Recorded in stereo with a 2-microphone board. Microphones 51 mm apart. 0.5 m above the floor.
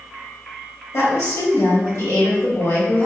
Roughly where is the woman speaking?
Left.